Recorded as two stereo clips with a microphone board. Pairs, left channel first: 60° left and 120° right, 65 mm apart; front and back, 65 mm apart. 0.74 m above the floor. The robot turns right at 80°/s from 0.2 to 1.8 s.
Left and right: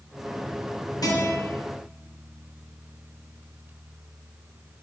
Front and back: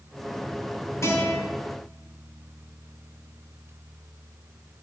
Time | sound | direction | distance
1.0 | a guitar | 45° left | 3 m